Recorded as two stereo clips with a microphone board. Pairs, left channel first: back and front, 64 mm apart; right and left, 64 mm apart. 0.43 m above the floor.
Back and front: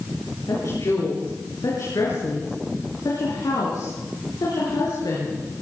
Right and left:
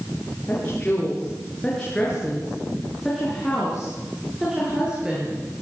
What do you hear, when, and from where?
0.5 s a woman speaking: 155° right, 6.5 m; by 5.4 s 165° left, 6.5 m